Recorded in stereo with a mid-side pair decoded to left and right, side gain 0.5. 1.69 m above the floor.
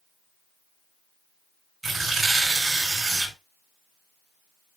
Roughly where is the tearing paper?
Ahead.